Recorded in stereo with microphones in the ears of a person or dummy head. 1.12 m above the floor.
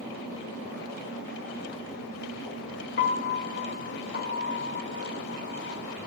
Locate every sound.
3.0 s a piano: 55° left (ahead or behind), 1.7 m